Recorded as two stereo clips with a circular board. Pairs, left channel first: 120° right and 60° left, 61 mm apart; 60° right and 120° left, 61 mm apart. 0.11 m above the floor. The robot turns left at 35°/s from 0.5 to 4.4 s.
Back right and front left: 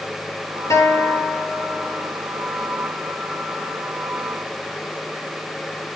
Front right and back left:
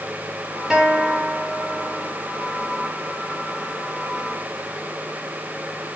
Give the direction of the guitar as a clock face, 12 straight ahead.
5 o'clock.